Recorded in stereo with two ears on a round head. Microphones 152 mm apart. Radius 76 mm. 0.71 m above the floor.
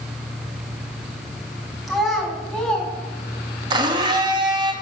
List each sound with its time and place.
1.9 s a child speaking: centre (ahead or behind), 4.5 m; by 2.9 s 5° left (ahead or behind), 4 m
3.7 s a blender: 25° right (ahead or behind), 1.1 m